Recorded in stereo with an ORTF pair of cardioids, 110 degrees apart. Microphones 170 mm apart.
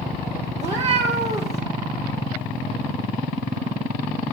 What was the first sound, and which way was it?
A cat meowing, 40° right.